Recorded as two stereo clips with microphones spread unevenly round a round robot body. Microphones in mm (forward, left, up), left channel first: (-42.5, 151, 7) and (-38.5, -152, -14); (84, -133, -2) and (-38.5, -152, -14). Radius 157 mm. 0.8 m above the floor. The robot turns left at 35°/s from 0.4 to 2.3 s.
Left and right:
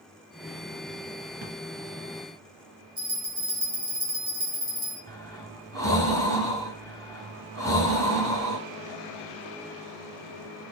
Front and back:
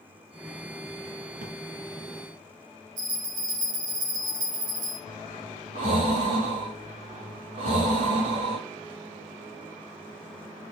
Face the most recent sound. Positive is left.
turn(degrees=170)